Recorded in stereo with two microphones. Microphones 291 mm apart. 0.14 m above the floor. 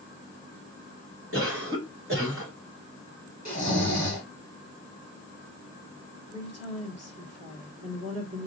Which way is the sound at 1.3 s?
50° right (ahead or behind).